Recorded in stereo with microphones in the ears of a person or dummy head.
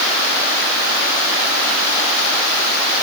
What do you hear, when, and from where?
Only background noise.